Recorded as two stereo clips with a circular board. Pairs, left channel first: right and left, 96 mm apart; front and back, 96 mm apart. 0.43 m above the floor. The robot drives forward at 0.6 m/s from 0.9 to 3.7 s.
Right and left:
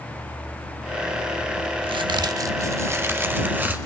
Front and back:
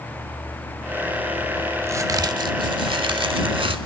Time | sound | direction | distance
1.8 | a crack | 115° left | 0.5 m